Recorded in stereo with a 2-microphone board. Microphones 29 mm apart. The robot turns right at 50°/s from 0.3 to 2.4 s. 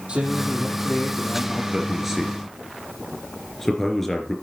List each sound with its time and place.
0.1 s a man speaking: 45° right, 5.5 m; by 1.6 s 20° left, 5.5 m
1.7 s a man speaking: 25° right (ahead or behind), 3 m; by 4.3 s 5° left (ahead or behind), 3 m